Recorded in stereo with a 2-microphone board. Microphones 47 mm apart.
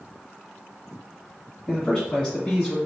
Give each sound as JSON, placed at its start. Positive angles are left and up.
{"t": 1.7, "sound": "a man speaking", "side_deg": 20, "distance_m": 1.9}